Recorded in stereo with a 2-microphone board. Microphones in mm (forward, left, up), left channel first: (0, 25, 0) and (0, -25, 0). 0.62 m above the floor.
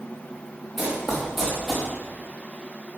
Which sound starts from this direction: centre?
Running footsteps, at 0.8 s.